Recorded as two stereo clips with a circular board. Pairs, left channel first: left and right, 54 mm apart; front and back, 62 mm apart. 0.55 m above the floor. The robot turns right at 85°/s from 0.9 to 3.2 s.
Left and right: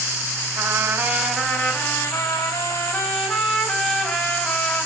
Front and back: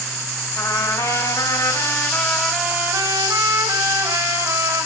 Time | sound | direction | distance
0.6 | a trumpet | 30° right | 4 m